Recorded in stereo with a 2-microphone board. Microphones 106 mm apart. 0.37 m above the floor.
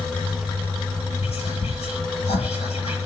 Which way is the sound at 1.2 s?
80° left.